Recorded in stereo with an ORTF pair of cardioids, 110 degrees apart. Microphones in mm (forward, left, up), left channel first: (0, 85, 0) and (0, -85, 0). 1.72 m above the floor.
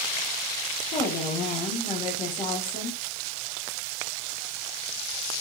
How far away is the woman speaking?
About 2.5 m.